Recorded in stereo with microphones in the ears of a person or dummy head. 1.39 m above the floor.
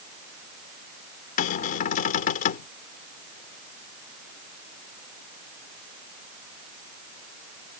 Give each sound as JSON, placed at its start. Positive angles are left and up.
{"t": 1.4, "sound": "a cupboard door", "side_deg": 45}